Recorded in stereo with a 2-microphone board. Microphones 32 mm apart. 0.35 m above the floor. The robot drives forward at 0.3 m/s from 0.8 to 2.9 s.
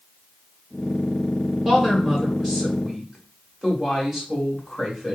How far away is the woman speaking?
About 1.4 m.